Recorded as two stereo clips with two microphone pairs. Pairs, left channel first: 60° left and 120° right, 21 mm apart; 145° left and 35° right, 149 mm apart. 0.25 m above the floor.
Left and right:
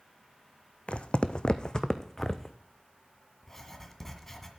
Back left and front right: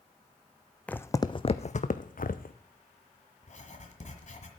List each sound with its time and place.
0.9 s footsteps: 65° left, 0.6 m; by 2.6 s 135° left, 1.0 m
3.4 s writing: 130° left, 1.6 m